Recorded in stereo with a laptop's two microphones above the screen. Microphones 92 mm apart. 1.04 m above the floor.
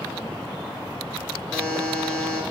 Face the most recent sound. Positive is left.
turn(degrees=10)  # may be behind; listen again after turning